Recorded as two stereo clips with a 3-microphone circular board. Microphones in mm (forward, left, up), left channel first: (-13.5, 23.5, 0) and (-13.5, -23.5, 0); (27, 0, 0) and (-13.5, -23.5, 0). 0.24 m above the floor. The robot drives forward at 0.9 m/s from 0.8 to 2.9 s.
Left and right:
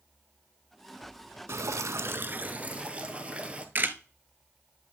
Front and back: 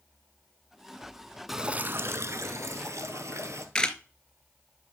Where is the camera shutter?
40° right, 0.6 m.